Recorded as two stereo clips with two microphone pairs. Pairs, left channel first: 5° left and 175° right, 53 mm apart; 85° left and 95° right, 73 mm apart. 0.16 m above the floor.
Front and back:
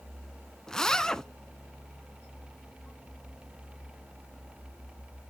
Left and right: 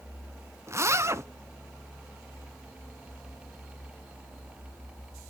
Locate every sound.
0.7 s a zipper: 70° right, 0.5 m